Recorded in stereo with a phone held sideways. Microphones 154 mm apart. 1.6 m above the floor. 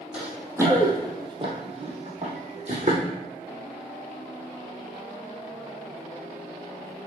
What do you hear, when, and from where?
0.1 s running footsteps: 5° right (ahead or behind), 2.5 m; by 3.0 s 45° right (ahead or behind), 3 m